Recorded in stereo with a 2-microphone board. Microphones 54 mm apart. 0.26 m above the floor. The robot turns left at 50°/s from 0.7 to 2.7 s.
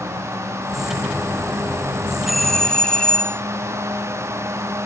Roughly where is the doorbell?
Centre.